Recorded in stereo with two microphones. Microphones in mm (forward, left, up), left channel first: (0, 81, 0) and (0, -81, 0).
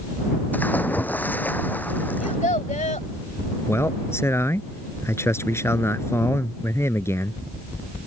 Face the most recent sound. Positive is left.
turn(degrees=15)  # may be behind; listen again after turning